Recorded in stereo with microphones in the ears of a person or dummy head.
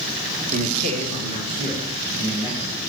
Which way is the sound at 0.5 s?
40° right (ahead or behind).